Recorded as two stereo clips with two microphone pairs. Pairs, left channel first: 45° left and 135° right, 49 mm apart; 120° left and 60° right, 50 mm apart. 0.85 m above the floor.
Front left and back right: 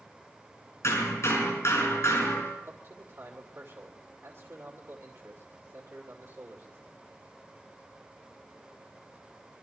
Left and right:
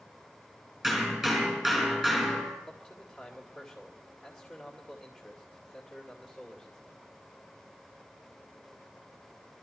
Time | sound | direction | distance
0.8 | hammering | 25° left | 5.5 m
2.7 | a man speaking | 150° right | 2.5 m